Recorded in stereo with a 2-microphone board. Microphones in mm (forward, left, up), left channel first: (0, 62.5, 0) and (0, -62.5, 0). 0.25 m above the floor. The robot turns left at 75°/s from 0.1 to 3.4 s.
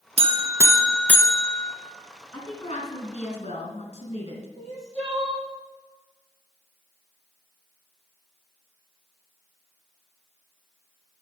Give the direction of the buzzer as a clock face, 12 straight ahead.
4 o'clock.